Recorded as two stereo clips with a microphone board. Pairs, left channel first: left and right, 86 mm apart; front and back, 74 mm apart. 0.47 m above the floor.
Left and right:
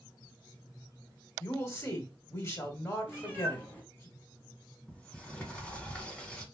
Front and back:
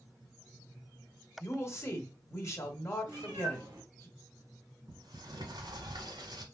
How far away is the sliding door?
About 1.0 m.